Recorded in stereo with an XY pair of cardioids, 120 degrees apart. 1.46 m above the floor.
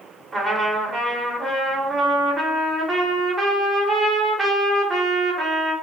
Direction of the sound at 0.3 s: 30° right.